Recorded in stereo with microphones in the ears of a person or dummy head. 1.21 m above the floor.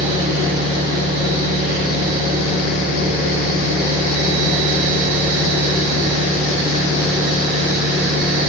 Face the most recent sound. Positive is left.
turn(degrees=-50)  # may be behind; listen again after turning